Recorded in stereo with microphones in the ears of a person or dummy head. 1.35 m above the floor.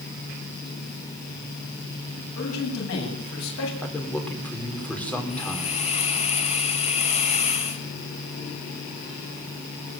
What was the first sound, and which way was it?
A man speaking, 75° left (ahead or behind).